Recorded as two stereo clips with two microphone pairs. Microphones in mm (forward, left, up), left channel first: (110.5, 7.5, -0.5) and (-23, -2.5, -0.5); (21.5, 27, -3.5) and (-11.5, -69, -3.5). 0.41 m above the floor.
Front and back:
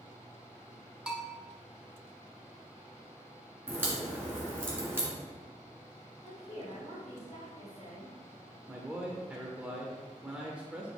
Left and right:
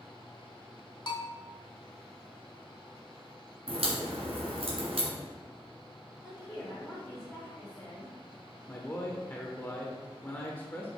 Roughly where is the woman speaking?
Ahead.